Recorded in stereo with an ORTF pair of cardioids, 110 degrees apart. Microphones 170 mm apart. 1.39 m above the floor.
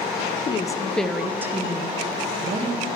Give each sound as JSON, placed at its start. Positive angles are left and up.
{"t": 0.5, "sound": "a woman speaking", "azimuth_deg": 35, "distance_m": 0.6}